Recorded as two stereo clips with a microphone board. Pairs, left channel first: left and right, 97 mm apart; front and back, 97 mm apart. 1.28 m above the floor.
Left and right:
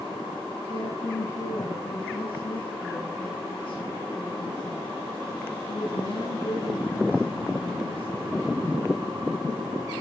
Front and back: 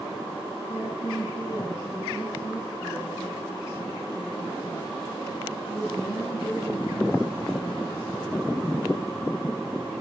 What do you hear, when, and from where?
0.7 s a woman speaking: 60° left, 9 m